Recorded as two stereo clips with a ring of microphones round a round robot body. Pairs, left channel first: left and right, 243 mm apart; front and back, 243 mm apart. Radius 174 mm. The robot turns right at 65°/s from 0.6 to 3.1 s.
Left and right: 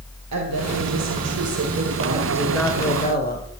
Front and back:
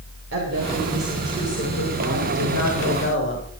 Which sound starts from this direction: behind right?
A woman speaking, at 0.3 s.